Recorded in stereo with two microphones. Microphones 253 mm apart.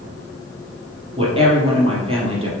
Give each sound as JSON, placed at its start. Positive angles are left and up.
{"t": 1.2, "sound": "a woman speaking", "side_deg": -20, "distance_m": 3.0}